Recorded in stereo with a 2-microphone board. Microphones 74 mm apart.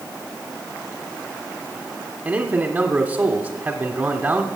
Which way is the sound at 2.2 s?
25° right (ahead or behind).